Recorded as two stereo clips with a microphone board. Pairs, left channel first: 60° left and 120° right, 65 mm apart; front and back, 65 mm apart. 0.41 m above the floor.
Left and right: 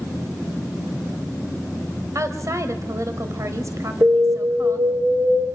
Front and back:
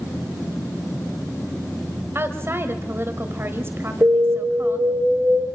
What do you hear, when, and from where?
2.1 s a woman speaking: 140° right, 1.7 m
4.0 s an alarm: 135° right, 7 m